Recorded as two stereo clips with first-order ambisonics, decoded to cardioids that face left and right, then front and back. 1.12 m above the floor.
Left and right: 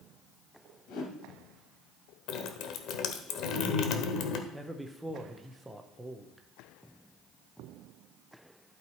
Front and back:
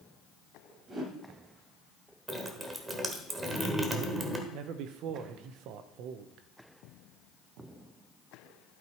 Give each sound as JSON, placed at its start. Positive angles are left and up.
{"t": 0.9, "sound": "a whoosh", "azimuth_deg": 115, "distance_m": 2.5}
{"t": 2.3, "sound": "dripping", "azimuth_deg": 105, "distance_m": 1.1}
{"t": 4.5, "sound": "a man speaking", "azimuth_deg": -175, "distance_m": 0.9}